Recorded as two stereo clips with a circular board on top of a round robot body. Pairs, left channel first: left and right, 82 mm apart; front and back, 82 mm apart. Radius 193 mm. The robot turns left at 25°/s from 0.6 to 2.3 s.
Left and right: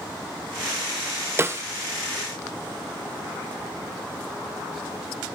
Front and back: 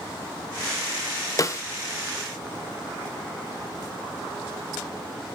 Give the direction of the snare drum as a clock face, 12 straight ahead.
1 o'clock.